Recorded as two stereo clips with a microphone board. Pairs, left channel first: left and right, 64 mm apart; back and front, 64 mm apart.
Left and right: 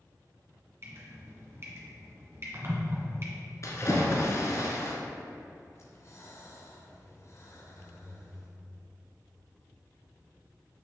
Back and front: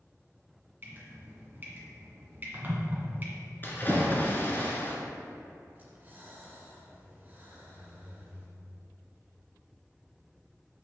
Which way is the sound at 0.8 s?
50° right.